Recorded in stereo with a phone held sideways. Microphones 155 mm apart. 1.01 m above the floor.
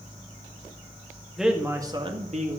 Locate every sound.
1.4 s a man speaking: centre (ahead or behind), 2.0 m; by 2.6 s 60° right (ahead or behind), 1.9 m